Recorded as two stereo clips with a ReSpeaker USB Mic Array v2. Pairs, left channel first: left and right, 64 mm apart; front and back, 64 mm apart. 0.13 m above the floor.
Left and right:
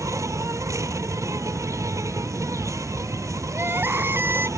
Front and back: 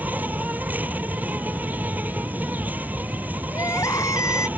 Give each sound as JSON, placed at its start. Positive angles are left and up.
{"t": 0.0, "sound": "an insect", "azimuth_deg": -120}
{"t": 3.5, "sound": "crying", "azimuth_deg": -30}